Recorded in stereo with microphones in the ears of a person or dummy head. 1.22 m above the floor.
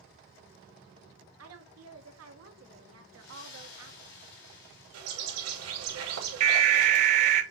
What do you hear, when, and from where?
1.4 s a woman speaking: 75° right (ahead or behind), 1.0 m
3.1 s a splash: 65° left (ahead or behind), 4 m
4.9 s a bird: 80° right, 2.5 m
6.4 s an alarm: 40° right (ahead or behind), 0.9 m